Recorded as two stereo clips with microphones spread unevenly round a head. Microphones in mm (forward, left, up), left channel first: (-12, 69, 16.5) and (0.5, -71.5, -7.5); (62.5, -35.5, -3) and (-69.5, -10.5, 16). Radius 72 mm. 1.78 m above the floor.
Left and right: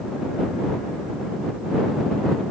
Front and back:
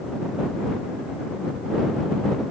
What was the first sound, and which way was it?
Only background noise.